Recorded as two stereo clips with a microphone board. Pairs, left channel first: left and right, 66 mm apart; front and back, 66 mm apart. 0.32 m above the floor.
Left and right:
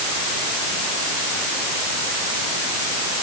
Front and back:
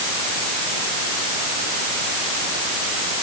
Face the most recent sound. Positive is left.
No sound to turn to.